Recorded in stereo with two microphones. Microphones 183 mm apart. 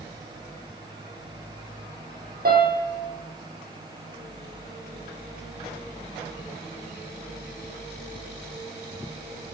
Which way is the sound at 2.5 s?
60° right (ahead or behind).